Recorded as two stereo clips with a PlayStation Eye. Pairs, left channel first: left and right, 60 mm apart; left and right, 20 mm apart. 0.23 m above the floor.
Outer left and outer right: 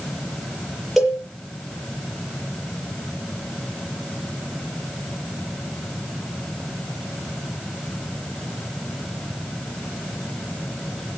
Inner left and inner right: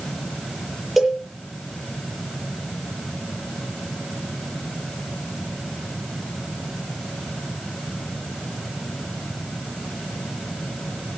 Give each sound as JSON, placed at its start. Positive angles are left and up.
{"t": 1.0, "sound": "a cowbell", "side_deg": -5, "distance_m": 7.0}